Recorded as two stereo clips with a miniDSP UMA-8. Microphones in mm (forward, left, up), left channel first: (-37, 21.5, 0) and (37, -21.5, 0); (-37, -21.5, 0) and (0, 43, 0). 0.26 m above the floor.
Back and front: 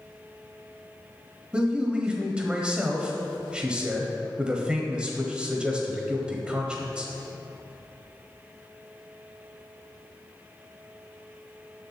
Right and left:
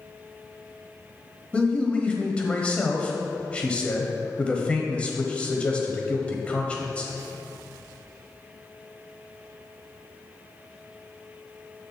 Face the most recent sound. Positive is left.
turn(degrees=-85)